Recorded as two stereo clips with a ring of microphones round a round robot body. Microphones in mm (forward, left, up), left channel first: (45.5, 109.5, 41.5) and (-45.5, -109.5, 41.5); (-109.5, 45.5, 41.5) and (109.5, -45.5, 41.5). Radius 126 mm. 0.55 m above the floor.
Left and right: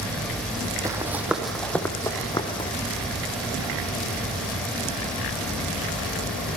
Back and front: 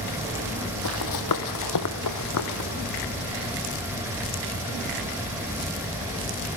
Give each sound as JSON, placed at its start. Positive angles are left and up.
{"t": 0.8, "sound": "running footsteps", "azimuth_deg": 170, "distance_m": 1.5}